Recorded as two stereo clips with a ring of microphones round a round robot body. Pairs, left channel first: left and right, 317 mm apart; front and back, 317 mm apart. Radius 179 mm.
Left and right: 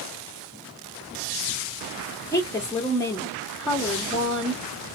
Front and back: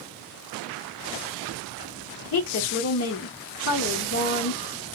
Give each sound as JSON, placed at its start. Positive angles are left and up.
{"t": 2.3, "sound": "a woman speaking", "azimuth_deg": 15, "distance_m": 0.8}